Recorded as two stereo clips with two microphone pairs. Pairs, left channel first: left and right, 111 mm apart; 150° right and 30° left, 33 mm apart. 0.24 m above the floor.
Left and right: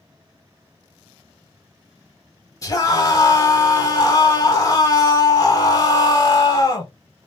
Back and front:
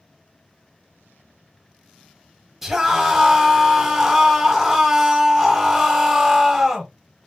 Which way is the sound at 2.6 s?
105° left.